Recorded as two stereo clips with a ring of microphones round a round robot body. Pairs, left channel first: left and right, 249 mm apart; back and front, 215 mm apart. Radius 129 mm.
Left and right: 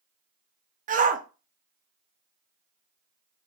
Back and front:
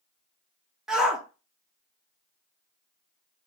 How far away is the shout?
About 0.6 m.